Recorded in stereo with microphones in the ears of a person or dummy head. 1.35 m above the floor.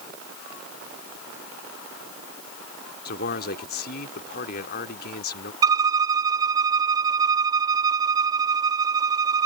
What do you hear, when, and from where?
3.0 s a man speaking: 55° left (ahead or behind)
5.6 s a violin: 15° right (ahead or behind)